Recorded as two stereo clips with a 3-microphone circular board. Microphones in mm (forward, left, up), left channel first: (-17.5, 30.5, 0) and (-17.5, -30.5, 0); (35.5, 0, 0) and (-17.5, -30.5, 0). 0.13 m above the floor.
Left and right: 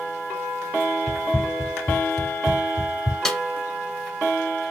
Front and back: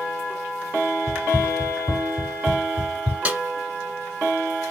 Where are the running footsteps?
155° left, 1.0 m; by 3.1 s 100° left, 3.5 m.